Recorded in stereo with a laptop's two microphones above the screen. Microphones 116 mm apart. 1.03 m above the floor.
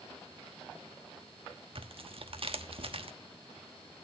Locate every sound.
1.8 s tearing paper: 55° right (ahead or behind), 1.1 m